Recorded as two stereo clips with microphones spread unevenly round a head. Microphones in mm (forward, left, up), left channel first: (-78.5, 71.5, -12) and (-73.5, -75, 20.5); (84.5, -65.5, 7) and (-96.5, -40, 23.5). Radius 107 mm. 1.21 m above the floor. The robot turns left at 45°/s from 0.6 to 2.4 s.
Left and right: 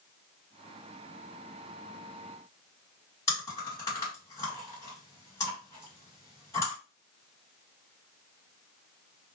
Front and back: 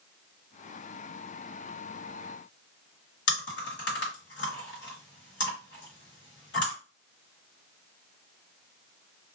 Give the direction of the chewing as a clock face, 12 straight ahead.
12 o'clock.